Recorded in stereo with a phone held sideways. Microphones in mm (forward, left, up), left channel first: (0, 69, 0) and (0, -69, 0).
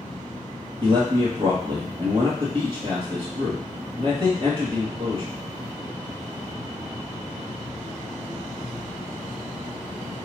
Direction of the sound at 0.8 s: 40° right (ahead or behind).